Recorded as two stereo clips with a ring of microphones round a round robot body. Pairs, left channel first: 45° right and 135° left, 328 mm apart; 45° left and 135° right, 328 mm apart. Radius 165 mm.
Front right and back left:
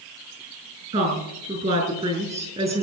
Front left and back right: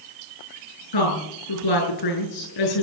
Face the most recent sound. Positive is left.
turn(degrees=65)